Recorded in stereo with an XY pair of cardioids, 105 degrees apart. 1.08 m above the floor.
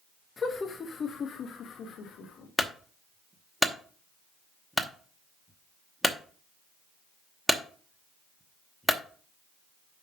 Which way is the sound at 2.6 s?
Straight ahead.